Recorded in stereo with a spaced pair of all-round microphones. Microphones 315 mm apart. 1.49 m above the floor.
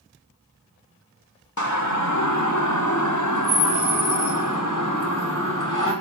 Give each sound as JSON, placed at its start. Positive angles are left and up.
{"t": 1.6, "sound": "a siren", "side_deg": 65, "distance_m": 3.0}